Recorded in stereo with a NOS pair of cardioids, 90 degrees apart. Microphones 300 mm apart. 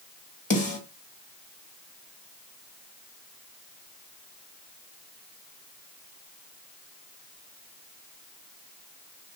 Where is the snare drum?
25° left, 1.9 m.